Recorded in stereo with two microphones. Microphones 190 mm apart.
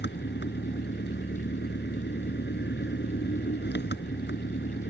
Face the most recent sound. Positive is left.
turn(degrees=65)  # may be behind; listen again after turning